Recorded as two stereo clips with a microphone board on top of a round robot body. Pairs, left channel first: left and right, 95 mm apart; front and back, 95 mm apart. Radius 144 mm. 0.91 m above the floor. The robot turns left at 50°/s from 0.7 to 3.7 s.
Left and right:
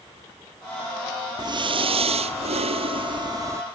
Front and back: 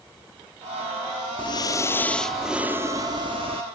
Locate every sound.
1.4 s breathing: 40° right; by 3.6 s 155° right